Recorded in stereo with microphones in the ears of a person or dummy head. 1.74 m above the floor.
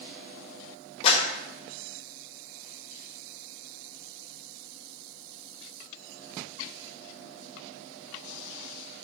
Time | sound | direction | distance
1.0 | a clap | 30° left (ahead or behind) | 1.7 m